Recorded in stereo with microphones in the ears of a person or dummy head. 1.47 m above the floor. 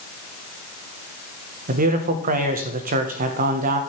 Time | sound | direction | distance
1.7 | a man speaking | 40° right (ahead or behind) | 1.5 m